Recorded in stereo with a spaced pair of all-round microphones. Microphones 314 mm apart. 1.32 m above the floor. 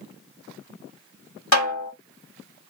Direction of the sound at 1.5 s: 60° left (ahead or behind).